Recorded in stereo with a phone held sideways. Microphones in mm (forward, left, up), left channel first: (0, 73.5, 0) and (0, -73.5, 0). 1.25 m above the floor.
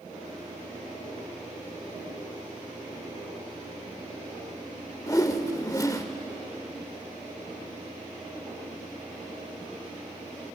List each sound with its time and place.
5.1 s a whoosh: 25° left (ahead or behind), 1.0 m